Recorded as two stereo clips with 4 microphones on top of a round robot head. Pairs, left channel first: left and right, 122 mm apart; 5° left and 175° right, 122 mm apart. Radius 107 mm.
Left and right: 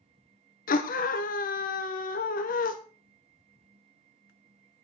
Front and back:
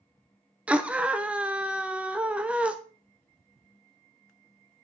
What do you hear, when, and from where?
0.7 s a scream: 105° left, 1.1 m